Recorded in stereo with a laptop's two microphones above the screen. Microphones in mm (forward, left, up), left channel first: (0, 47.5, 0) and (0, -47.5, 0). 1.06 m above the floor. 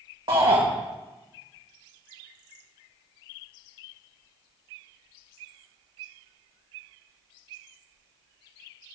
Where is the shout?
70° right (ahead or behind), 1.7 m.